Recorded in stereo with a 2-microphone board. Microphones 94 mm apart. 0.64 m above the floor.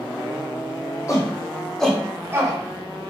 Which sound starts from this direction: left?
A shout, at 1.1 s.